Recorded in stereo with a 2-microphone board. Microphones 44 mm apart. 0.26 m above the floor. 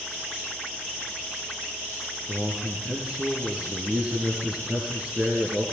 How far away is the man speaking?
About 4 m.